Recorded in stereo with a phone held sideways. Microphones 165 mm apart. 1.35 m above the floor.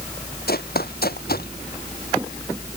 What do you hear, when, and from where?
0.5 s running footsteps: 70° left (ahead or behind)